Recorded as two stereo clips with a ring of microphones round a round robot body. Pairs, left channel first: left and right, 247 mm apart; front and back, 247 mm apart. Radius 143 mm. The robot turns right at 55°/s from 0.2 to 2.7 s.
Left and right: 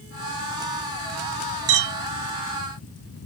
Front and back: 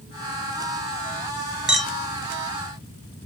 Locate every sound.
1.7 s a clink: 95° right, 1.0 m; by 1.9 s 80° right, 1.0 m